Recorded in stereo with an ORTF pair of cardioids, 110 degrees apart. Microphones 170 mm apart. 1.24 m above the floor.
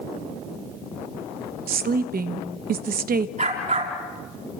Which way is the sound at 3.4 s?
45° right.